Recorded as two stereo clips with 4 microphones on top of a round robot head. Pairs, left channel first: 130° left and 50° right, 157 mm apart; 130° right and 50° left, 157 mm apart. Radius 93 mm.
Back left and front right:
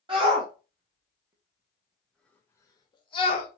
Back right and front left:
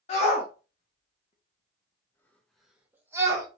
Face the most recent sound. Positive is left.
turn(degrees=105)